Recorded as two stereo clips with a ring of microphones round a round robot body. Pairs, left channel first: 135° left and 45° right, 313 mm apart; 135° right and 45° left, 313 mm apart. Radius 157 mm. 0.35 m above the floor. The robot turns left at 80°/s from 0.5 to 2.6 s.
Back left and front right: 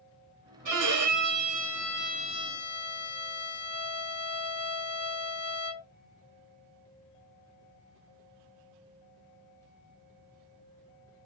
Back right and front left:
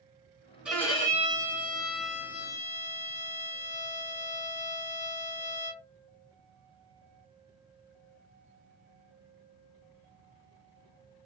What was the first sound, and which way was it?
A violin, 40° right.